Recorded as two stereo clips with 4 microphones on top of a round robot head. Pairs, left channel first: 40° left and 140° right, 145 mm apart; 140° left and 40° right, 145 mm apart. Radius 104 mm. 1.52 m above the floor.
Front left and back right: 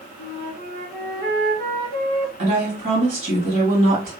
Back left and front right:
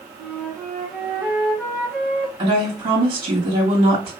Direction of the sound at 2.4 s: 100° right.